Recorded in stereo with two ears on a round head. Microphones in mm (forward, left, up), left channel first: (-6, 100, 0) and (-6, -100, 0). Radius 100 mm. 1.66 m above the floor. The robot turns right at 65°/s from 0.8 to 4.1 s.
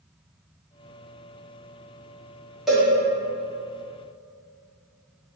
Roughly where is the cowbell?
Centre.